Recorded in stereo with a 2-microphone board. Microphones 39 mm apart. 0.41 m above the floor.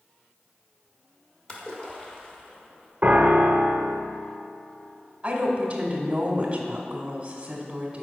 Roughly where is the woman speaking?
Right.